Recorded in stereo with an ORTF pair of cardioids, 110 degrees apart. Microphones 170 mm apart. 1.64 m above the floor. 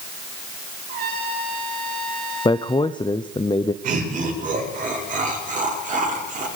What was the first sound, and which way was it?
A trumpet, 70° right.